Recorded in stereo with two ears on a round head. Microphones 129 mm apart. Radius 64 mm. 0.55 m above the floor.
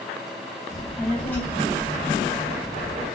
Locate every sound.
0.7 s a child speaking: 5° right (ahead or behind), 0.7 m; by 3.1 s 35° left (ahead or behind), 1.1 m